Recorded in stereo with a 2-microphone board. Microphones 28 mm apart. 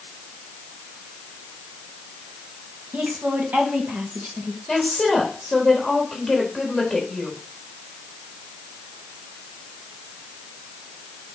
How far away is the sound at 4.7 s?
About 3 m.